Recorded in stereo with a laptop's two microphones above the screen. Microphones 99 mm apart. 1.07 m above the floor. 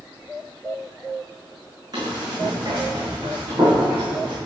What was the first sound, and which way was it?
Running footsteps, 40° right (ahead or behind).